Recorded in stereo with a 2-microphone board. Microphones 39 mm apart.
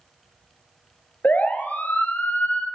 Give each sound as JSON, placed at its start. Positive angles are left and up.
{"t": 1.2, "sound": "a siren", "side_deg": 45, "distance_m": 2.0}